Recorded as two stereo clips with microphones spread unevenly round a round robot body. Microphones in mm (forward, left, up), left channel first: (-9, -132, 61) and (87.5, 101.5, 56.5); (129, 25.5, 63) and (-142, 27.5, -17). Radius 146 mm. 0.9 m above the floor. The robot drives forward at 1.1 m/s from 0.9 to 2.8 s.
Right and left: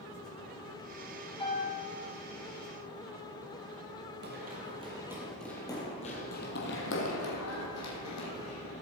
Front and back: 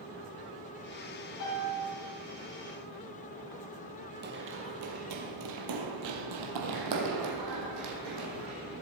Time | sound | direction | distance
1.4 | a piano | 45° right | 4.5 m
4.2 | running footsteps | 120° left | 1.9 m